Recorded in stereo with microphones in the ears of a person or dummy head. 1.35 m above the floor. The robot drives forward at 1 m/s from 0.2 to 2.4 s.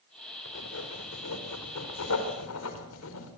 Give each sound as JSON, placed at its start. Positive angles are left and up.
{"t": 0.5, "sound": "writing", "side_deg": 70, "distance_m": 4.5}